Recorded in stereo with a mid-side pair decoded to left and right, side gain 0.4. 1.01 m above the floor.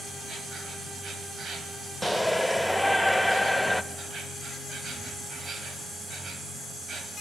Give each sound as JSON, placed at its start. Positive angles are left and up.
{"t": 0.0, "sound": "an insect", "azimuth_deg": -65, "distance_m": 2.0}
{"t": 2.0, "sound": "a shout", "azimuth_deg": -5, "distance_m": 0.9}